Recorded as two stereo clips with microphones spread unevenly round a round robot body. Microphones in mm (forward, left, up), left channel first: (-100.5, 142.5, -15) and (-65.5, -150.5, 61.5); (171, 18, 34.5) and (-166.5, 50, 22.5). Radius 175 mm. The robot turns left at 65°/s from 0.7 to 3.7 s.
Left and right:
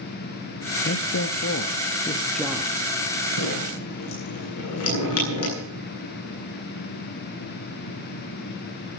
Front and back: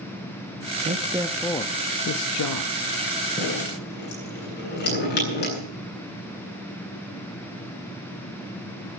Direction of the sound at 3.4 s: 75° left.